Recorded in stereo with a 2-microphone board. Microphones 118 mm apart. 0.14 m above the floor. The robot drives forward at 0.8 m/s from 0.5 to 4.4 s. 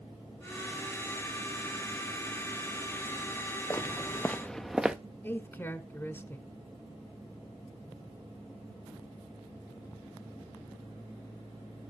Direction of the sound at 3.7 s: 25° left (ahead or behind).